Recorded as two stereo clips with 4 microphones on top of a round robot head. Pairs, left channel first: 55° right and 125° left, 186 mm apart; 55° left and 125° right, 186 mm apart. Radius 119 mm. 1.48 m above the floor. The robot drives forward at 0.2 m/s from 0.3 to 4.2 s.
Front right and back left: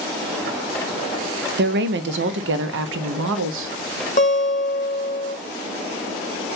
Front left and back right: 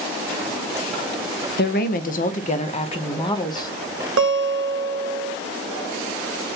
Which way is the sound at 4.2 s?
110° right.